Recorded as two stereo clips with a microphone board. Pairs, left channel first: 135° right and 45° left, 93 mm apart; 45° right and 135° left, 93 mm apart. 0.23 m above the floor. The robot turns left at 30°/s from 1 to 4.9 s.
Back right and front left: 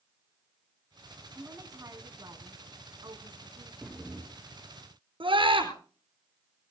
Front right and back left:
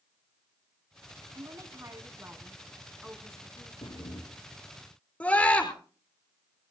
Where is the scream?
30° left, 4 m.